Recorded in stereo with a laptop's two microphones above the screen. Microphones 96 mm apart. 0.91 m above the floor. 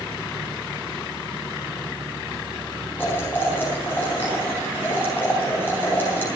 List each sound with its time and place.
3.0 s boiling: 20° left (ahead or behind), 4 m